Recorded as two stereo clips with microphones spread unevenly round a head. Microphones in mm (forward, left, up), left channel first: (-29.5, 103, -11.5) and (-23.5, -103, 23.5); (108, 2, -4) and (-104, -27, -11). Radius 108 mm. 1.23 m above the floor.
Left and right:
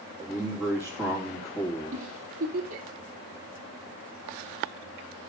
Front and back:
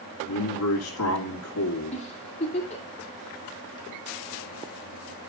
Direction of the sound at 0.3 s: Straight ahead.